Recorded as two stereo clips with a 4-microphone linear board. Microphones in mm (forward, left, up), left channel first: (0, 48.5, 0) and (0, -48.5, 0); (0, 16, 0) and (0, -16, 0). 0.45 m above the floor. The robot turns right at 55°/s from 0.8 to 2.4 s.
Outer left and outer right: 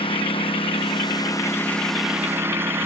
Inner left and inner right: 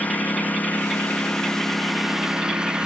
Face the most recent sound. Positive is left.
turn(degrees=-155)